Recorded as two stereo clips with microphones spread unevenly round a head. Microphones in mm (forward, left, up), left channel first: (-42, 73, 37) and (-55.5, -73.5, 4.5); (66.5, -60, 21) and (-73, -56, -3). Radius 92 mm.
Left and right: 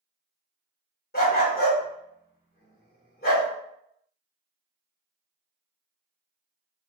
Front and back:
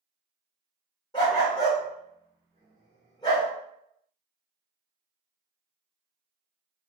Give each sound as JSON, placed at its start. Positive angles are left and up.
{"t": 1.1, "sound": "a dog barking", "azimuth_deg": 60, "distance_m": 1.2}